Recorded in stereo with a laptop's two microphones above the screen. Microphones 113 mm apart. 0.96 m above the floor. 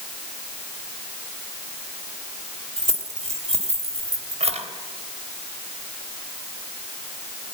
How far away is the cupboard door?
No cupboard door in this recording.